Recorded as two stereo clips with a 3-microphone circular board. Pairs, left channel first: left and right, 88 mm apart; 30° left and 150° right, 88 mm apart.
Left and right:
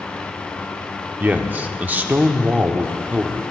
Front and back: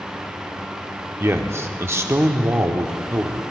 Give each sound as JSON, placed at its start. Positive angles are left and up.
{"t": 1.2, "sound": "a man speaking", "azimuth_deg": -140, "distance_m": 0.8}